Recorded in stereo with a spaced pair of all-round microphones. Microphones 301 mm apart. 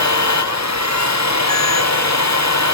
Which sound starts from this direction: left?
A machine running, at 0.0 s.